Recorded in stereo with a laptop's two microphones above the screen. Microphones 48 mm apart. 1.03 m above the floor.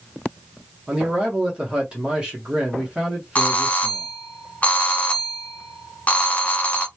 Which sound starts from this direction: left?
A doorbell, at 3.4 s.